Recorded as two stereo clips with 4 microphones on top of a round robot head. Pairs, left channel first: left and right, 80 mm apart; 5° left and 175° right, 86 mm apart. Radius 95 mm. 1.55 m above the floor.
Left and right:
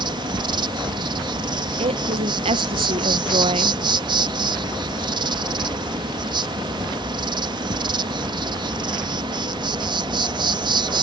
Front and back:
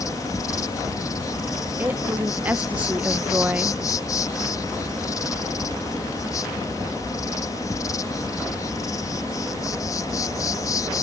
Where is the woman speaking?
100° right.